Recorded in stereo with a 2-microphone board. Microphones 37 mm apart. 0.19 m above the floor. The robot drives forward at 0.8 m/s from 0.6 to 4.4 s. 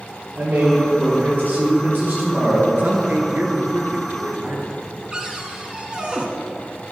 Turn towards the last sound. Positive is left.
turn(degrees=-25)  # may be behind; listen again after turning